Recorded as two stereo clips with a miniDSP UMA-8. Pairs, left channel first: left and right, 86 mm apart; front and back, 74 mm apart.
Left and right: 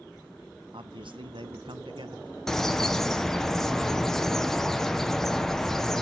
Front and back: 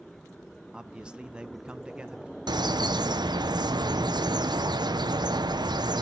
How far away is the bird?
About 0.8 m.